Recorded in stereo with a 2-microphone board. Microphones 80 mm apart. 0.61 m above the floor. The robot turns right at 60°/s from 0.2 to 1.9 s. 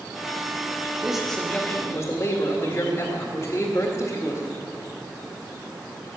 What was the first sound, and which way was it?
A man speaking, 10° right.